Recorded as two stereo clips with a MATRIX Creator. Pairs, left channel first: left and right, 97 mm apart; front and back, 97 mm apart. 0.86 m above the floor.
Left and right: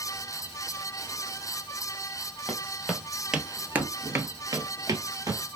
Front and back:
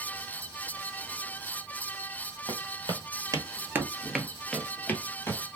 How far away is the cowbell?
I don't hear a cowbell.